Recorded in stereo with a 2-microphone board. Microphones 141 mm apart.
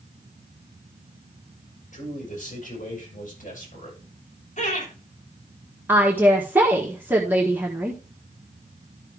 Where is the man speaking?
65° left (ahead or behind), 6 m; by 4.0 s 70° left (ahead or behind), 7.5 m.